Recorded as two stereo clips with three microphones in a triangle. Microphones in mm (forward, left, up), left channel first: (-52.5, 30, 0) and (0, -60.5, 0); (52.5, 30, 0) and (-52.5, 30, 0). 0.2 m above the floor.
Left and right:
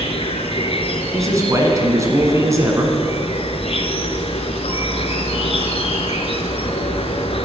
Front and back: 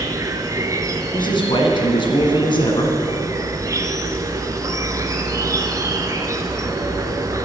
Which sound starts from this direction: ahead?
A man speaking, at 1.1 s.